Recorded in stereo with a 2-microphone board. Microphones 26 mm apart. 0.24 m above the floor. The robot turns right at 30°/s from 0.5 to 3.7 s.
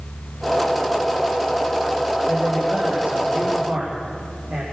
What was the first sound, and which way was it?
A man speaking, 155° right.